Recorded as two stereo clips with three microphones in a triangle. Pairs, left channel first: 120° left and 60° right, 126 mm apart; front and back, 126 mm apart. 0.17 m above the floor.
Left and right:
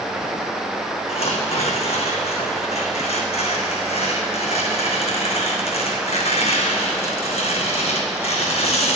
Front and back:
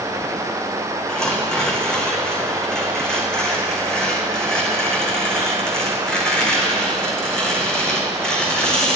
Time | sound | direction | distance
1.1 | tearing paper | 85° left | 1.7 m